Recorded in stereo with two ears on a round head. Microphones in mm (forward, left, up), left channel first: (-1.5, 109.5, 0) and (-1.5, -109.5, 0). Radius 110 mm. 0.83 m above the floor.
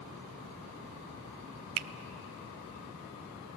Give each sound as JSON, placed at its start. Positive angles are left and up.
{"t": 1.8, "sound": "a finger snap", "side_deg": -70, "distance_m": 0.6}